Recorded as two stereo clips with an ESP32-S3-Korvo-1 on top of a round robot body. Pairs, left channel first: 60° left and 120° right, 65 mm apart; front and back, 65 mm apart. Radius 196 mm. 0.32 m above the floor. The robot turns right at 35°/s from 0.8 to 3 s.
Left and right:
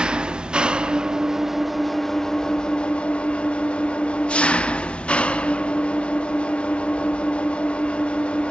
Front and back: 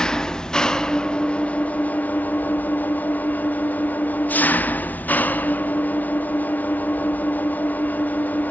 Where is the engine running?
65° right, 1.3 m; by 8.5 s 10° left, 1.3 m.